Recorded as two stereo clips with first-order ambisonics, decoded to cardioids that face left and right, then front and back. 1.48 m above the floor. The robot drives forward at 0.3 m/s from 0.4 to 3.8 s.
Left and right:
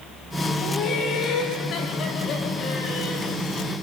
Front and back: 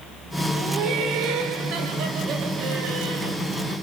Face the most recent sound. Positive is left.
turn(degrees=155)